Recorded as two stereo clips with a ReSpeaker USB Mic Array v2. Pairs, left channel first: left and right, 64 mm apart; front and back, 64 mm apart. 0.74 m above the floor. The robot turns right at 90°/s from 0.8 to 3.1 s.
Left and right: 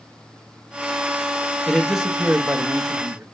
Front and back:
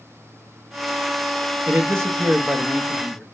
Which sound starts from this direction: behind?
A man speaking, at 1.7 s.